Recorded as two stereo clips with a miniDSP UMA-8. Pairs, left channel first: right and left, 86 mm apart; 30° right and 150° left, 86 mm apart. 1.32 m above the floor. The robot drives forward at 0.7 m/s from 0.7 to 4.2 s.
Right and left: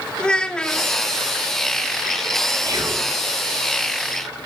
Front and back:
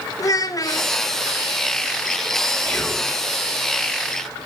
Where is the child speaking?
15° right, 0.8 m; by 0.9 s 20° right, 0.7 m.